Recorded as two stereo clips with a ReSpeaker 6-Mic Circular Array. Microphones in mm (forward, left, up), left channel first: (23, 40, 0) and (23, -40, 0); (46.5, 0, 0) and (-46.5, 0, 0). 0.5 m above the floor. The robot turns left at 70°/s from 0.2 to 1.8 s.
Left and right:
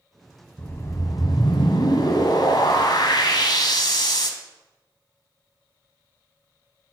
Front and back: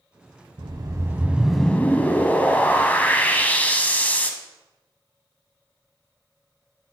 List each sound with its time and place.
0.6 s a whoosh: 155° left, 0.7 m; by 4.3 s 70° left, 0.7 m